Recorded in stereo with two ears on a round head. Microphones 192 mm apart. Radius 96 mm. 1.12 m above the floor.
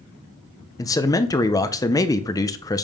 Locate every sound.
0.8 s a man speaking: 15° left (ahead or behind), 0.6 m